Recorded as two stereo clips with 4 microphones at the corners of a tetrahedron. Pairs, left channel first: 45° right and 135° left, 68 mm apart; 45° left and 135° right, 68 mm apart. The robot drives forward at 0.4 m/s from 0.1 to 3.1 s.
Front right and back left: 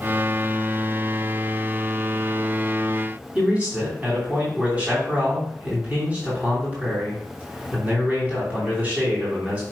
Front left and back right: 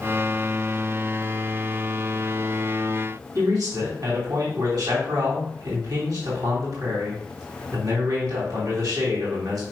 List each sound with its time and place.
3.4 s a man speaking: 155° right, 3 m